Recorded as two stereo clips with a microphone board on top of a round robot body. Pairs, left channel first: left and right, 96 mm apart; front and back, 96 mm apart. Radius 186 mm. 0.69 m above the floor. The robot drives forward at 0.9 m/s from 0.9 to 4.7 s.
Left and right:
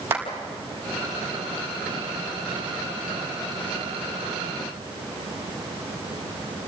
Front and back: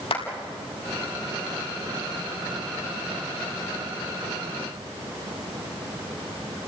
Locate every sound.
0.1 s a clap: 25° right, 5 m